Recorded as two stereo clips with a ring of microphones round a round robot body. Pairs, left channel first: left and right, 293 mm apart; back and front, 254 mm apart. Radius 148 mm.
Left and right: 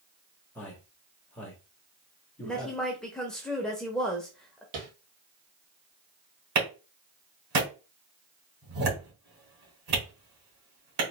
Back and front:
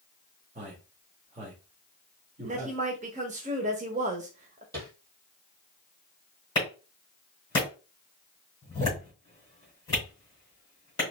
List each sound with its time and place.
0.6 s a man speaking: 10° left, 1.2 m
2.4 s a woman speaking: 5° left, 0.9 m
4.7 s tapping: 80° right, 2.5 m
6.5 s a clap: 110° right, 2.5 m